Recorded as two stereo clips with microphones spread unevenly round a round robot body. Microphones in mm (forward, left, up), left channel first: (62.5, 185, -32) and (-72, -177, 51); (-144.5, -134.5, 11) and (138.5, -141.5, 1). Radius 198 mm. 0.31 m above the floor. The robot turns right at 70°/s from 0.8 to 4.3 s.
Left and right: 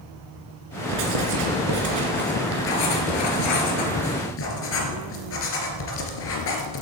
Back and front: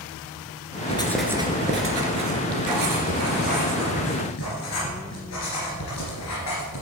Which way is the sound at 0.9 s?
115° right.